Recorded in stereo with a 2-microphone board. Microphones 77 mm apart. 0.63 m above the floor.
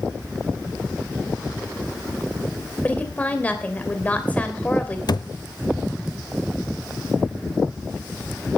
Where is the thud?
60° left (ahead or behind), 0.7 m.